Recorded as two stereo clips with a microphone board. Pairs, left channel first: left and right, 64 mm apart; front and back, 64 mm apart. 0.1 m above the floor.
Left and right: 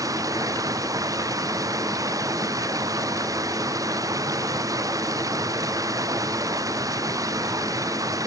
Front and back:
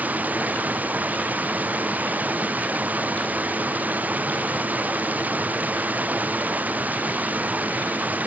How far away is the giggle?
I don't hear a giggle.